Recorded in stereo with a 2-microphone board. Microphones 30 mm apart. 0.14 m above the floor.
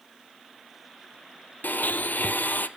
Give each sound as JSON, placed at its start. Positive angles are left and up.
{"t": 1.6, "sound": "a blender", "side_deg": 70, "distance_m": 0.7}